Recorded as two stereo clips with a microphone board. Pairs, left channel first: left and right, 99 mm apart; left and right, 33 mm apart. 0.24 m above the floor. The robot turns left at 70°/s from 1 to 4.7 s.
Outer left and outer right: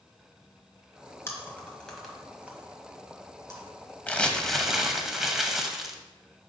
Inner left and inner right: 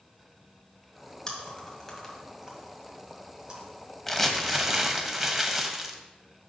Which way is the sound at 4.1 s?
15° left (ahead or behind).